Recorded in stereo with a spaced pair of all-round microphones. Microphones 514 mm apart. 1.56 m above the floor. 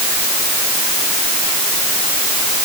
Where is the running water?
No running water in this recording.